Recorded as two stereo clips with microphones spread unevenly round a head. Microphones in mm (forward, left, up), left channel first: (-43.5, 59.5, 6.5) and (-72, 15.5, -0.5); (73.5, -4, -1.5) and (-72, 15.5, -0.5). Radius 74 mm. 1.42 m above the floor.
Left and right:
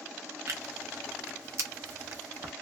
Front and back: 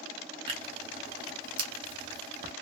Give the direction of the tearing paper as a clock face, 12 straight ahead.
5 o'clock.